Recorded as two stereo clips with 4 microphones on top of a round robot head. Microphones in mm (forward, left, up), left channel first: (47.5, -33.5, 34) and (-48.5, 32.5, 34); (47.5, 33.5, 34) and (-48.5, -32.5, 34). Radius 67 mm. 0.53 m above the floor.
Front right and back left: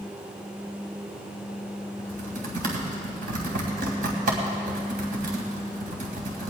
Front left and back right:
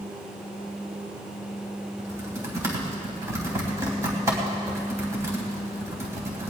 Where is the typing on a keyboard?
145° left, 3 m.